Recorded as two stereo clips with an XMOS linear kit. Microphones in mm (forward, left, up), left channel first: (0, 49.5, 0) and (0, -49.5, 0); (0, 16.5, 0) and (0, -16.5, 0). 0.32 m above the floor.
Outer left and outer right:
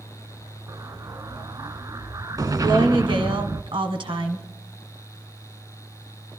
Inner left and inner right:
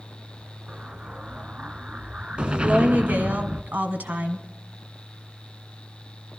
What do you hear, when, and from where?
0.7 s an explosion: 40° right (ahead or behind), 0.6 m
2.6 s a woman speaking: 60° right (ahead or behind), 2 m